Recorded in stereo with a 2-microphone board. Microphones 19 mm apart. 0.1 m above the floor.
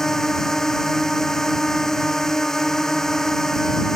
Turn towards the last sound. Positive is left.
turn(degrees=20)  # may be behind; listen again after turning